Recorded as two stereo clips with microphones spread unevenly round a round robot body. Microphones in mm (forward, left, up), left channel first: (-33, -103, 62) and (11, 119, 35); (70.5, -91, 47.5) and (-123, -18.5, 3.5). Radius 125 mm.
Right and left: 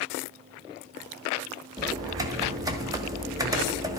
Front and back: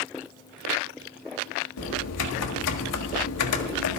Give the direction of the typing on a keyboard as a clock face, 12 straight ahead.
12 o'clock.